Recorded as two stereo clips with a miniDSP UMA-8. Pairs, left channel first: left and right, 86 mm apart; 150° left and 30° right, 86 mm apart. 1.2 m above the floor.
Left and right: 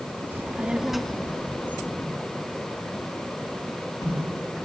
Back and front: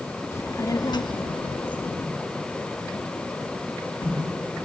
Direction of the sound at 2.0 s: 135° left.